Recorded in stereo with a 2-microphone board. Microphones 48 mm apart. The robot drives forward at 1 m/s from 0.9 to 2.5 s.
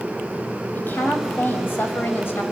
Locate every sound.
0.8 s a woman speaking: 45° left (ahead or behind), 6.5 m; by 2.4 s 55° left (ahead or behind), 5.5 m